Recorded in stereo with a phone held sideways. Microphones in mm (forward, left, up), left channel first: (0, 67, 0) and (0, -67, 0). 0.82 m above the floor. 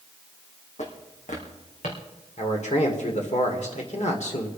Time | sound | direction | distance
0.8 | footsteps | 60° left (ahead or behind) | 2.5 m
2.4 | a man speaking | 60° left (ahead or behind) | 2 m